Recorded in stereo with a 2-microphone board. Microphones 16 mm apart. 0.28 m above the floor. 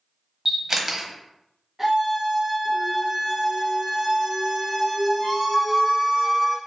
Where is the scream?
20° right (ahead or behind), 1.6 m.